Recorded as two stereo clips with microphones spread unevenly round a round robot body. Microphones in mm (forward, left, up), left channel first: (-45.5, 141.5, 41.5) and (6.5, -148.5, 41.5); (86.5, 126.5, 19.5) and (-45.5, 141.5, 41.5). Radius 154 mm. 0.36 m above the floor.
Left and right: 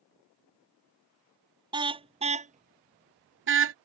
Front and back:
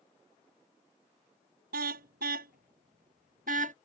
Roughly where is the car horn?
Behind right.